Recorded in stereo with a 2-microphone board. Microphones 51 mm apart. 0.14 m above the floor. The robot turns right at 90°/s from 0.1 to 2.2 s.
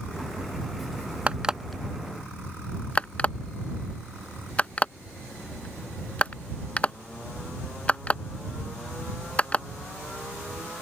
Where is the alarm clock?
25° right (ahead or behind); by 9.7 s 25° left (ahead or behind).